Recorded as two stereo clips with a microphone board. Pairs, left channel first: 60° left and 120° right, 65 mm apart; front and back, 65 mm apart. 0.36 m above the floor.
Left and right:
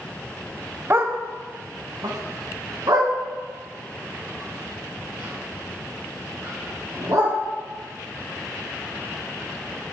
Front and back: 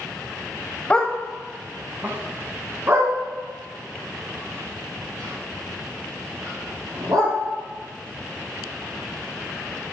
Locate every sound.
0.9 s a dog barking: 70° right, 0.6 m; by 7.3 s 145° right, 4 m